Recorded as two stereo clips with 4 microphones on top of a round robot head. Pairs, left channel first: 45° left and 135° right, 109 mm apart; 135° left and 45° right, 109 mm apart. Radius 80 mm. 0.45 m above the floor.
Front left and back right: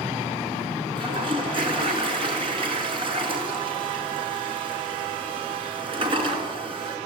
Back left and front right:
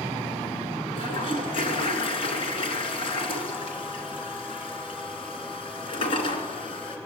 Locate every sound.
0.9 s a toilet flushing: straight behind, 2.5 m